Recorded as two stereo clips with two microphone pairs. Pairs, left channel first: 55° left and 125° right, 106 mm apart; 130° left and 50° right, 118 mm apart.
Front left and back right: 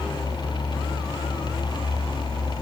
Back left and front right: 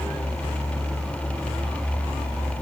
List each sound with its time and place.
Only background noise.